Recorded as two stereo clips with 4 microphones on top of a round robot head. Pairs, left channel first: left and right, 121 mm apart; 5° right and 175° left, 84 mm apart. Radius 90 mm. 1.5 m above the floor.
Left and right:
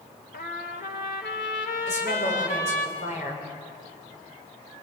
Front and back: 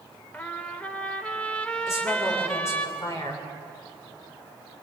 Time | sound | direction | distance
0.3 | a trumpet | 65° left | 1.7 m
1.9 | a woman speaking | 50° left | 7 m